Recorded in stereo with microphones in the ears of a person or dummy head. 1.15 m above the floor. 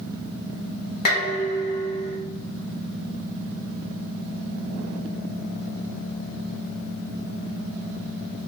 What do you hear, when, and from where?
1.1 s dishes clattering: 55° left (ahead or behind), 1.1 m